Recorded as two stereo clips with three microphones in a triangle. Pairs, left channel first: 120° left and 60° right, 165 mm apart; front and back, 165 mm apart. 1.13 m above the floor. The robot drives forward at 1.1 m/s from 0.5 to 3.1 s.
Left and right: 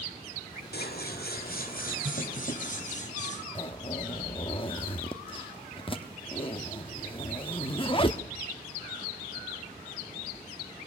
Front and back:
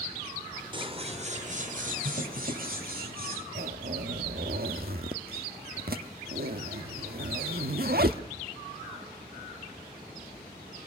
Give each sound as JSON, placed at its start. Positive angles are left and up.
{"t": 0.7, "sound": "scissors", "azimuth_deg": 120, "distance_m": 1.7}
{"t": 3.5, "sound": "a zipper", "azimuth_deg": 175, "distance_m": 1.1}